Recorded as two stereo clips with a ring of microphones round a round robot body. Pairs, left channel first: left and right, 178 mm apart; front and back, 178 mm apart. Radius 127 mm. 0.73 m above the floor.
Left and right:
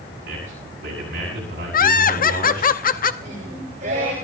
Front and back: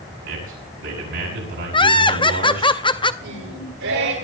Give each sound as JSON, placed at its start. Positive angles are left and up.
{"t": 0.2, "sound": "a man speaking", "azimuth_deg": -140, "distance_m": 6.5}
{"t": 1.7, "sound": "laughter", "azimuth_deg": 60, "distance_m": 0.8}
{"t": 3.2, "sound": "singing", "azimuth_deg": -155, "distance_m": 9.5}